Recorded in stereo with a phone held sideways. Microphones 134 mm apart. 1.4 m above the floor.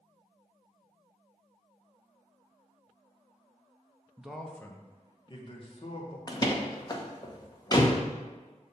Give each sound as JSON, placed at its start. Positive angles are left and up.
{"t": 4.2, "sound": "a man speaking", "side_deg": -10, "distance_m": 0.7}
{"t": 6.3, "sound": "a door slam", "side_deg": 30, "distance_m": 0.7}